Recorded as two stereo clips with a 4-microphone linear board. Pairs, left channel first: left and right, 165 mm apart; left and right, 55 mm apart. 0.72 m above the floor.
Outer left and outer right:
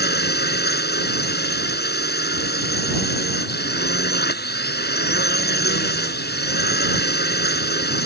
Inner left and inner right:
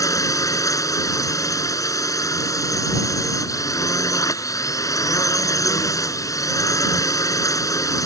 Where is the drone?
80° left.